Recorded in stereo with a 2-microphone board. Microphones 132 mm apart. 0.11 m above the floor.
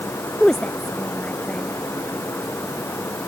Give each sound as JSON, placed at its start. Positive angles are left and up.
{"t": 0.4, "sound": "a woman speaking", "side_deg": 5}